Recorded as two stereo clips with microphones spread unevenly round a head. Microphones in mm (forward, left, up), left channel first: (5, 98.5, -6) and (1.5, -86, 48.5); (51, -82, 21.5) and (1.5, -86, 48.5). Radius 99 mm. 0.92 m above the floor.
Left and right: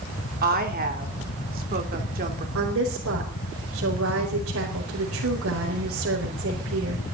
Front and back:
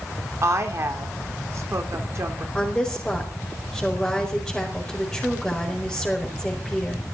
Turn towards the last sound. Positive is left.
turn(degrees=-70)